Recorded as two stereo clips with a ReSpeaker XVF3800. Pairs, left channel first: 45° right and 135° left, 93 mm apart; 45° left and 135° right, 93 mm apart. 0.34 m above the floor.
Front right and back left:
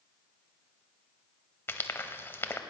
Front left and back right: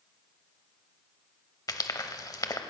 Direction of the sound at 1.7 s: 15° left.